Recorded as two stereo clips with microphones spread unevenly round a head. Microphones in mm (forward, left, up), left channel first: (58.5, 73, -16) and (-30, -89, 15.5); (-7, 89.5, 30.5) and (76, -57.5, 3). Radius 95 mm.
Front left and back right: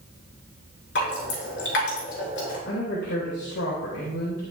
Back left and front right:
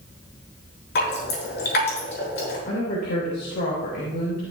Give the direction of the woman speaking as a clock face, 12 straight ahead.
9 o'clock.